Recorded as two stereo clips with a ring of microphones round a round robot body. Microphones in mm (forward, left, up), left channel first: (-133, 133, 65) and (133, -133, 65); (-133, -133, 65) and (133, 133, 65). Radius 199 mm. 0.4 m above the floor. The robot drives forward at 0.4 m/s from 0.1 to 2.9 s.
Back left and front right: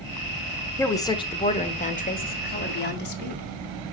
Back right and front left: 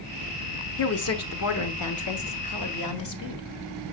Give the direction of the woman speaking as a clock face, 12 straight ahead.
5 o'clock.